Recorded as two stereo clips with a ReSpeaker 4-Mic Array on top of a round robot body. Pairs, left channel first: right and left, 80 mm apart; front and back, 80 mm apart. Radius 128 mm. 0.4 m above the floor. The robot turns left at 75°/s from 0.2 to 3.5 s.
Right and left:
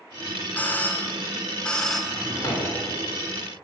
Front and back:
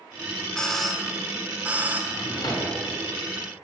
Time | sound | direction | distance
0.6 | a doorbell | 60° right | 1.2 m
2.1 | a drawer | 10° right | 1.5 m